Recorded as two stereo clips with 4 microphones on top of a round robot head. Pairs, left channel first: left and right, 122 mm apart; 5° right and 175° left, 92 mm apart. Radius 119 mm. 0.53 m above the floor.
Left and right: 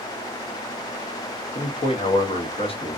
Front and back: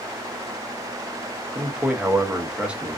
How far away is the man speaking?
About 0.9 m.